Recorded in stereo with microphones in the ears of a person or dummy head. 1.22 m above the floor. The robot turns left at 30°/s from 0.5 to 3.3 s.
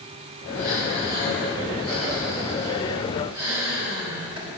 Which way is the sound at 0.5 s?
70° left.